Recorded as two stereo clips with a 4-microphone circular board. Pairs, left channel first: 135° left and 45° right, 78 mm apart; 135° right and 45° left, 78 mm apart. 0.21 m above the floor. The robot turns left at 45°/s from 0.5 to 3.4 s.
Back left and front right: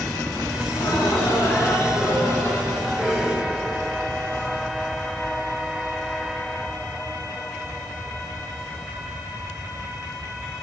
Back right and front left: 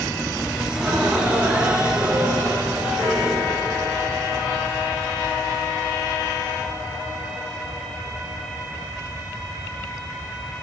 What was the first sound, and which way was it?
Laughter, 140° left.